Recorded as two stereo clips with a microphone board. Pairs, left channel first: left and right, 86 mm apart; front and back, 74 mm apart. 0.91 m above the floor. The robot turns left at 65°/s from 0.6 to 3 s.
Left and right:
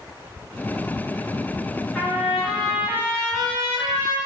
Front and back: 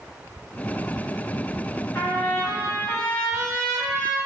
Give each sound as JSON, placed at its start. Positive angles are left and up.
{"t": 1.9, "sound": "a trumpet", "azimuth_deg": 20, "distance_m": 1.0}